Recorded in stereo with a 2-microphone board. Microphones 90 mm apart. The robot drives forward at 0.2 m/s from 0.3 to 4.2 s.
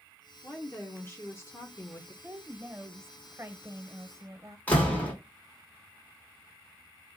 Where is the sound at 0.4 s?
20° left (ahead or behind), 0.8 m; by 2.1 s 30° left (ahead or behind), 0.6 m.